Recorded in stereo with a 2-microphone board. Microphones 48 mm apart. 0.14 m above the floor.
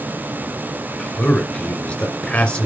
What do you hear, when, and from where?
1.0 s a man speaking: 20° left (ahead or behind), 2.5 m